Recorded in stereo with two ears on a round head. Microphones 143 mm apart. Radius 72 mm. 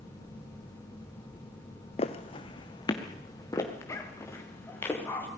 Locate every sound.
2.0 s footsteps: 40° left (ahead or behind), 1.5 m; by 5.3 s 15° left (ahead or behind), 5 m